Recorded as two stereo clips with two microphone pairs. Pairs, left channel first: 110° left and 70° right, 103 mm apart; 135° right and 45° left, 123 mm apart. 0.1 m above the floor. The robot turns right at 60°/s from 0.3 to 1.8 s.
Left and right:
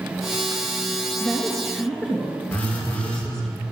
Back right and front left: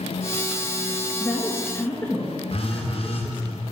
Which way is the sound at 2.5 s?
175° right.